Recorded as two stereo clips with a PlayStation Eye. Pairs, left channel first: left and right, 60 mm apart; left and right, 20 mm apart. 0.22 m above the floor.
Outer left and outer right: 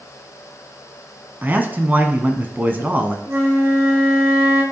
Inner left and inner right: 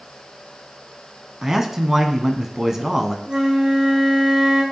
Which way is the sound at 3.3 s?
50° right (ahead or behind).